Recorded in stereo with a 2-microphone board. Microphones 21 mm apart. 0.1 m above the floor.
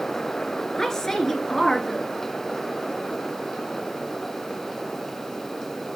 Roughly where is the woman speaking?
Centre.